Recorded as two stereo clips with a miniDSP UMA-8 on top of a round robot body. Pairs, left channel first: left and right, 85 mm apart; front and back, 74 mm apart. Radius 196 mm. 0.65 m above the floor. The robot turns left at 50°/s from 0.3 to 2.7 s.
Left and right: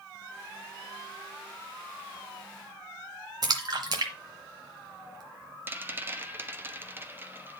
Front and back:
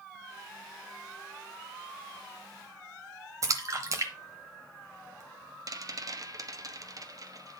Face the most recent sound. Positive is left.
turn(degrees=-155)